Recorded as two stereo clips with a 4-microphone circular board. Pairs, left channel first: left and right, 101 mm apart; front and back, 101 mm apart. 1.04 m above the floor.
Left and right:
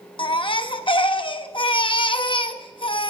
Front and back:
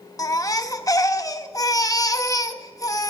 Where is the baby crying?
55° left, 0.8 m.